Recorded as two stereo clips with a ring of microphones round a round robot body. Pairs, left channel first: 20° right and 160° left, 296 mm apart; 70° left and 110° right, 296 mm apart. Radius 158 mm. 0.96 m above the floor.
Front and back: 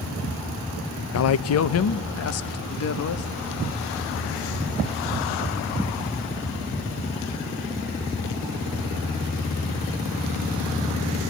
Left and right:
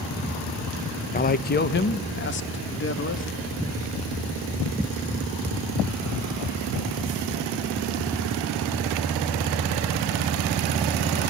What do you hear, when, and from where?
1.1 s a man speaking: 10° left, 0.8 m; by 3.3 s 20° left, 1.9 m